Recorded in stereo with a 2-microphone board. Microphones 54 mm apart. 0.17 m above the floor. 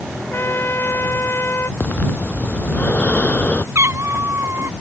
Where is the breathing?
30° left (ahead or behind).